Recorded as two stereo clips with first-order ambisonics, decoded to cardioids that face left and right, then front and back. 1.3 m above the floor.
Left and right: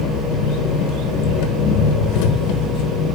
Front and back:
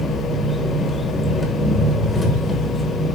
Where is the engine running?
75° left, 1.2 m.